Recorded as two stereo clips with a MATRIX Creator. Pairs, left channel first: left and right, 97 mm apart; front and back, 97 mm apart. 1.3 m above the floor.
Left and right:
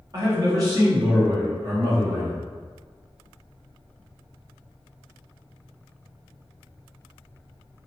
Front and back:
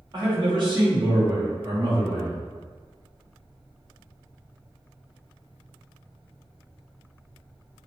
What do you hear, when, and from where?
0.1 s a man speaking: 140° right, 1.6 m